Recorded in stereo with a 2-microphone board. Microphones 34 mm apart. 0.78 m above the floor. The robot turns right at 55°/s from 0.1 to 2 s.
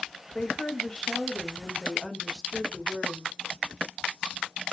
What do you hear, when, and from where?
0.3 s a woman speaking: 25° left (ahead or behind), 0.8 m; by 3.3 s 5° right (ahead or behind), 0.8 m